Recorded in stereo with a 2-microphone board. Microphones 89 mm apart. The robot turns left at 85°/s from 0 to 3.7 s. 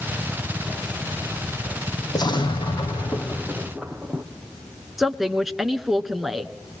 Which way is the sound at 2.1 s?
130° left.